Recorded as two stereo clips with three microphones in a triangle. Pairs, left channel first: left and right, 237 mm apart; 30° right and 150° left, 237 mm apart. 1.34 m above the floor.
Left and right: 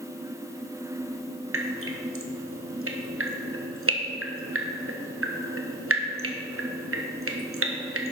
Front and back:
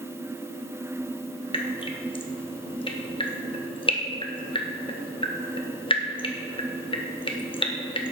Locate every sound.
1.5 s dripping: 100° right, 1.1 m